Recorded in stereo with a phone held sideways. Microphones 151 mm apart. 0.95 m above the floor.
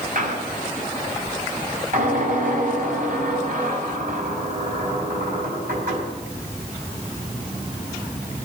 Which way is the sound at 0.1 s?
60° right (ahead or behind).